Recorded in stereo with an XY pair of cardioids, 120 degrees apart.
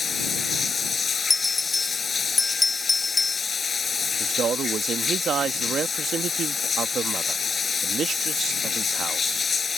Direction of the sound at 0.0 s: 30° left.